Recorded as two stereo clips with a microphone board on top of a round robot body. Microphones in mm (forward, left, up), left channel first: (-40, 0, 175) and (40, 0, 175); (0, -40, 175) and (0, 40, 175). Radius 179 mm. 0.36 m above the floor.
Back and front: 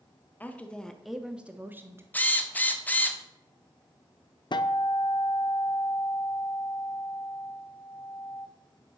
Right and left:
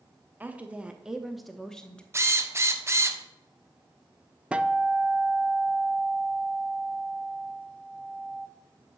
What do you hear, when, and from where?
0.4 s a woman speaking: 135° left, 1.2 m; by 2.0 s 20° right, 1.2 m
2.1 s a drill: 125° left, 1.3 m
4.5 s a guitar: 165° left, 0.7 m